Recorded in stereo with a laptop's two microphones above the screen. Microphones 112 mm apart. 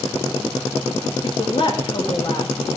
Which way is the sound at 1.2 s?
45° left (ahead or behind).